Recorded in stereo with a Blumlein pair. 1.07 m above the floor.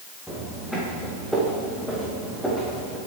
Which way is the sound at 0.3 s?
Straight ahead.